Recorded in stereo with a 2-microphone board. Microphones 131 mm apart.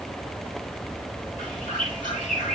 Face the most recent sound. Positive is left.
turn(degrees=75)  # may be behind; listen again after turning